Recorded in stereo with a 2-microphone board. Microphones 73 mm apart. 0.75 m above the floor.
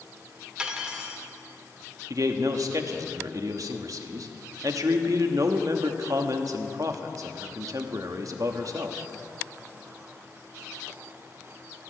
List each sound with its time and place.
0.6 s cutlery clinking: 15° right (ahead or behind), 1.1 m
2.1 s a man speaking: 55° right (ahead or behind), 1.0 m